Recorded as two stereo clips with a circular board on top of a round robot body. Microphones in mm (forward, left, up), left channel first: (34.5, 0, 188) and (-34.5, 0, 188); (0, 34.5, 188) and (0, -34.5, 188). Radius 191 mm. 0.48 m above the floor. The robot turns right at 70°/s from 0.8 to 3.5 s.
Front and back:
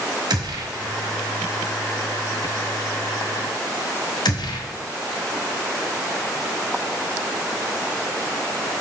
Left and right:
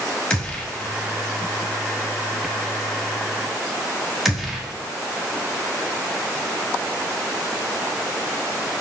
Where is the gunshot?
165° left, 1.2 m; by 4.7 s 5° right, 1.2 m.